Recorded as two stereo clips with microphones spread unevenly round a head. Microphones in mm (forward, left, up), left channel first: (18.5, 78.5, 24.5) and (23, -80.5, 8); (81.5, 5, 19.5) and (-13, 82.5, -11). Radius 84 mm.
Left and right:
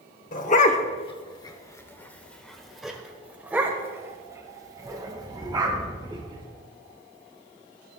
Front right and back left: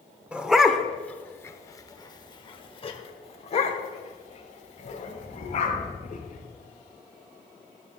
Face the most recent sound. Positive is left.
turn(degrees=-25)